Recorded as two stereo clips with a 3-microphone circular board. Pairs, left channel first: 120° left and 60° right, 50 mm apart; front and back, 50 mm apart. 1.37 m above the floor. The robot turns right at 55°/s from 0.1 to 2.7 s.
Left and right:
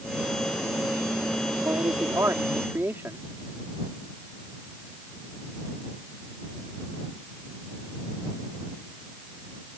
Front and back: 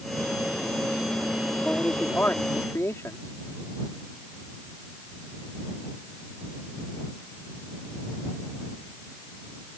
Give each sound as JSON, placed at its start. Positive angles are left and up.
{"t": 1.6, "sound": "a man speaking", "azimuth_deg": -80}